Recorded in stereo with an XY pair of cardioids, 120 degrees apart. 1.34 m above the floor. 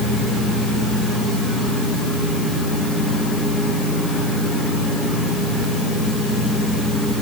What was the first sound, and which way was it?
Only background noise.